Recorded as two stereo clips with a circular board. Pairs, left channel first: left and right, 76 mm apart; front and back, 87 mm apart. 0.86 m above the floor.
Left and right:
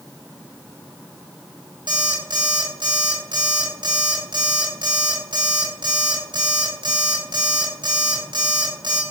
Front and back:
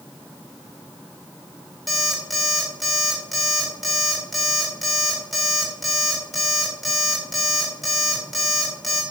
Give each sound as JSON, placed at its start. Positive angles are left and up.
{"t": 1.9, "sound": "an alarm clock", "azimuth_deg": -90, "distance_m": 2.0}